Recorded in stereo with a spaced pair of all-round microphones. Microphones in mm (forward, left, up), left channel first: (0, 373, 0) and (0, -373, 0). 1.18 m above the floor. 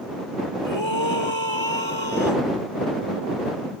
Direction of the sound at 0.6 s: 35° left (ahead or behind).